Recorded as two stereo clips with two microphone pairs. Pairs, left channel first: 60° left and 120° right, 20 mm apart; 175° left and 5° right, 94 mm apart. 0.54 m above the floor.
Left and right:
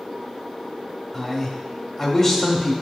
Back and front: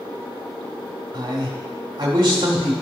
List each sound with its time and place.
1.1 s a man speaking: 10° left, 1.4 m